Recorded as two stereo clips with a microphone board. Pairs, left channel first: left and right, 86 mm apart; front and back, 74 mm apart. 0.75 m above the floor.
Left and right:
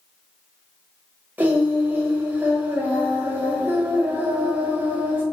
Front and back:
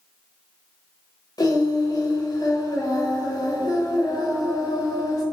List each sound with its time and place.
1.4 s singing: 25° right, 1.0 m